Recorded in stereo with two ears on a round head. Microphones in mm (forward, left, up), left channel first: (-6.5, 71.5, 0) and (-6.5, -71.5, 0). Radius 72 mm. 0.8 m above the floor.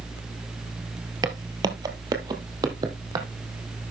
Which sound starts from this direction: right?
Footsteps, at 1.2 s.